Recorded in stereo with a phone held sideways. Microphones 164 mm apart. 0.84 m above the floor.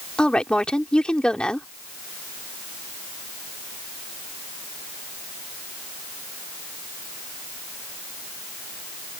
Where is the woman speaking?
5° left (ahead or behind).